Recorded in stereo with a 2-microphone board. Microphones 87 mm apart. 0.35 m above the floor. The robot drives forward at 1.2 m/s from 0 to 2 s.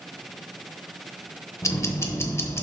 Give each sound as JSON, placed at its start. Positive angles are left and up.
{"t": 1.6, "sound": "ticking", "side_deg": 35, "distance_m": 0.8}